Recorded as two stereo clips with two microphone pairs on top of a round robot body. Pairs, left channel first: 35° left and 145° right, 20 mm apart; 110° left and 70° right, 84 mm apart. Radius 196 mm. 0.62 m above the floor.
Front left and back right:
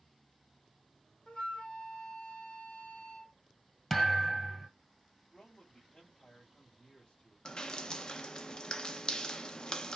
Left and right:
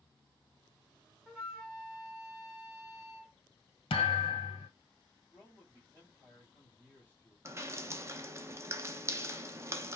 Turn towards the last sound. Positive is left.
turn(degrees=-15)